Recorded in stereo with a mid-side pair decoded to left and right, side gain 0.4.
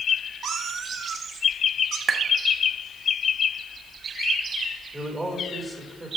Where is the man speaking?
20° right, 3.5 m.